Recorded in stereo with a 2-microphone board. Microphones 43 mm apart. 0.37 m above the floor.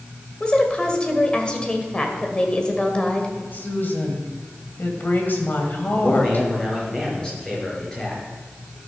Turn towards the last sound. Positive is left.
turn(degrees=15)  # may be behind; listen again after turning